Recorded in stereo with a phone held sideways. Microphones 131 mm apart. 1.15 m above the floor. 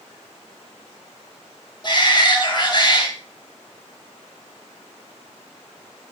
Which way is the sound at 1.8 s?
35° left (ahead or behind).